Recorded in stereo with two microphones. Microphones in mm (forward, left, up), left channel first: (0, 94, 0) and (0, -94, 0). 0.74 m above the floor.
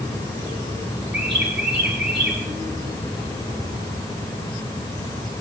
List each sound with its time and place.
1.1 s a bird: 75° right (ahead or behind), 5 m